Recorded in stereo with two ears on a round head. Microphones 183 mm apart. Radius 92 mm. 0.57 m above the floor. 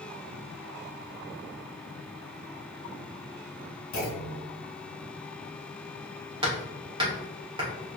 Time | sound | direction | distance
3.9 | a clunk | 70° left (ahead or behind) | 1.4 m
6.4 | hammering | 25° right (ahead or behind) | 1.6 m